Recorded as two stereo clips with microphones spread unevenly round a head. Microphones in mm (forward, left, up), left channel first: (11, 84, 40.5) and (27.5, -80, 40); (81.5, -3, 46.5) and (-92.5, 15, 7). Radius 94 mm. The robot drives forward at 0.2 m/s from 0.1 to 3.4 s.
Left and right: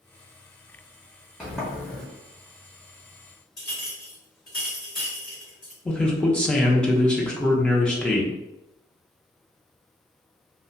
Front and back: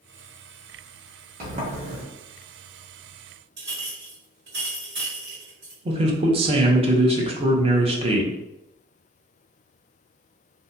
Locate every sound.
1.4 s a sliding door: 175° right, 0.6 m
3.6 s a clink: 160° left, 1.8 m
5.8 s a man speaking: 175° left, 0.6 m